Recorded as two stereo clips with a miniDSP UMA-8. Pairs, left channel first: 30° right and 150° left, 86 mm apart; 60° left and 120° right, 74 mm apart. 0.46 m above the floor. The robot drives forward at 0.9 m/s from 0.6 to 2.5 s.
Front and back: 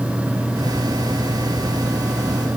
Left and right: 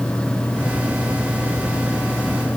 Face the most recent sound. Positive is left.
No sound to turn to.